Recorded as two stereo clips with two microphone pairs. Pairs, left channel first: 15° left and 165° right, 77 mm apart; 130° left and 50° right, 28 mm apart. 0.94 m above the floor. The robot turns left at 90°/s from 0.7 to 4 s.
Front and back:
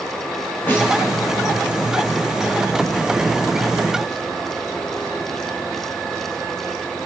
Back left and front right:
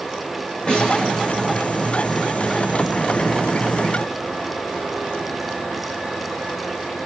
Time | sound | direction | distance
0.7 | a snare drum | 80° left | 4.5 m